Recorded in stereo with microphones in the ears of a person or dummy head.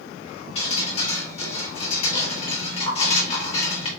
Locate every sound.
0.6 s dripping: 35° left (ahead or behind), 1.6 m